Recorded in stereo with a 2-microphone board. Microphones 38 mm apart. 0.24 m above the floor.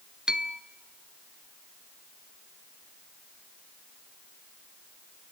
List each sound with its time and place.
0.3 s a bell: 20° right (ahead or behind), 0.9 m